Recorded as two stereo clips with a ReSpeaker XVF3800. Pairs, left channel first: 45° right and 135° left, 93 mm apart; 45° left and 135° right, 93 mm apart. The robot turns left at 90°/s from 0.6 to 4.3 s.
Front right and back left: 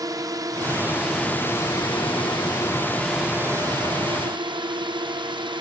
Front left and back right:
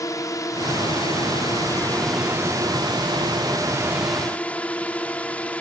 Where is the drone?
90° left; by 5.6 s 120° left.